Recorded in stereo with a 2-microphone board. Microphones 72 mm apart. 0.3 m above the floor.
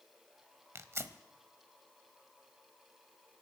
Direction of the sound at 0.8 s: 40° right (ahead or behind).